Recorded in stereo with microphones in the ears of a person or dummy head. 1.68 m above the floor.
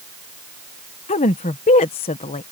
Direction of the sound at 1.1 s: 30° left (ahead or behind).